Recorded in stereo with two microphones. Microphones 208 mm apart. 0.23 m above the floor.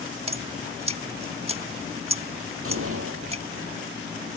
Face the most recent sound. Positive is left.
turn(degrees=-80)